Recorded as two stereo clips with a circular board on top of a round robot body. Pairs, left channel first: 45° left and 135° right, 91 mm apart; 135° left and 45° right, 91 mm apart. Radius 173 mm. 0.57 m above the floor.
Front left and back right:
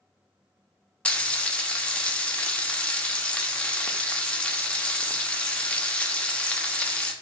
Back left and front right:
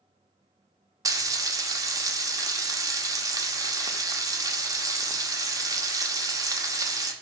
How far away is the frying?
About 0.8 m.